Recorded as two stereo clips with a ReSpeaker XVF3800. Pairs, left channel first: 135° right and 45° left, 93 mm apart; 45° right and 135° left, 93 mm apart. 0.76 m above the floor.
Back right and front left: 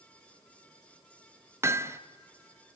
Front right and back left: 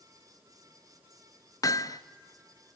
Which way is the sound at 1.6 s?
5° right.